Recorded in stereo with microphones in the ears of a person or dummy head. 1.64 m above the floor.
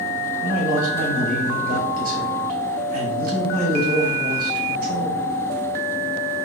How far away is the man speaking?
About 0.6 m.